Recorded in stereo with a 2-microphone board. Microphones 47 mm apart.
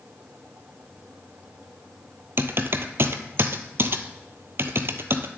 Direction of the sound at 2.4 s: 60° right (ahead or behind).